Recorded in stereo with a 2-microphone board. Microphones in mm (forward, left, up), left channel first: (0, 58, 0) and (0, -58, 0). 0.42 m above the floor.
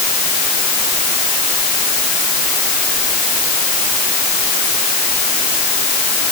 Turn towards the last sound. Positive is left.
No sound to turn to.